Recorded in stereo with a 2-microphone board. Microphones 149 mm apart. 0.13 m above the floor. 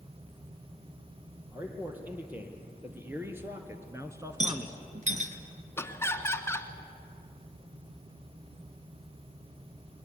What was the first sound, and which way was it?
A man speaking, 10° right (ahead or behind).